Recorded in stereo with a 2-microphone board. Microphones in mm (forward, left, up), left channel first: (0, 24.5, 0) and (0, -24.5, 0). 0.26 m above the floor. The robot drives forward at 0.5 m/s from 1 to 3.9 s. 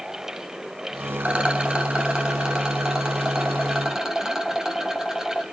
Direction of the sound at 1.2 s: 25° right (ahead or behind).